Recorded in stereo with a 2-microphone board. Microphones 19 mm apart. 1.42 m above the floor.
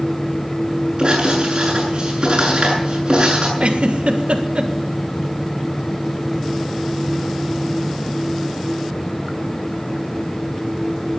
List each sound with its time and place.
1.0 s writing: 45° right (ahead or behind), 7.5 m
3.6 s a giggle: 75° right (ahead or behind), 1.6 m